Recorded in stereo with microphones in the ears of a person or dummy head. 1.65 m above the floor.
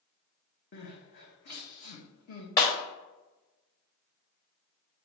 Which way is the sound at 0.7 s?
55° left (ahead or behind).